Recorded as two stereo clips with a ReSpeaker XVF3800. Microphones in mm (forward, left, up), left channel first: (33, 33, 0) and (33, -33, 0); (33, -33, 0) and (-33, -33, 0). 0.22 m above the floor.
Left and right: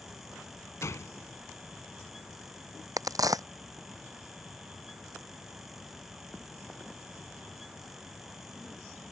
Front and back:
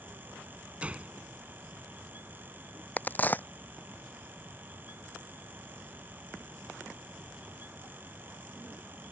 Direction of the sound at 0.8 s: 115° left.